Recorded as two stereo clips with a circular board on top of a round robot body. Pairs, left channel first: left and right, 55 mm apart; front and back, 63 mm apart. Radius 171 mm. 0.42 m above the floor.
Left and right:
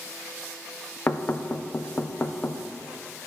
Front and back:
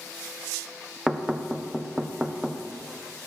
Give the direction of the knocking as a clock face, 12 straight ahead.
8 o'clock.